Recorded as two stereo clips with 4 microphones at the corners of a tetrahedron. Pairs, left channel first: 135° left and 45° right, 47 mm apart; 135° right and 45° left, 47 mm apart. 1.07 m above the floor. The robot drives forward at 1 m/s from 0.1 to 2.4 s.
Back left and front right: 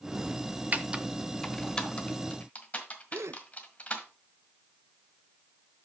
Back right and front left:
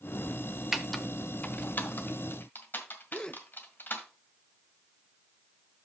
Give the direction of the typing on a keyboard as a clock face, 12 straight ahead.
1 o'clock.